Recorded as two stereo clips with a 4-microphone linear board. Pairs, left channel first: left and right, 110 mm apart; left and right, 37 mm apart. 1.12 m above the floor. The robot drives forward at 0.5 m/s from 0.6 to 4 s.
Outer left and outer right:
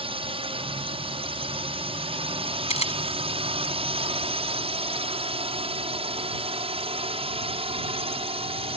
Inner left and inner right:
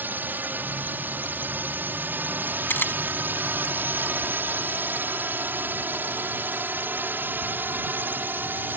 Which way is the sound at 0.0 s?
60° right (ahead or behind).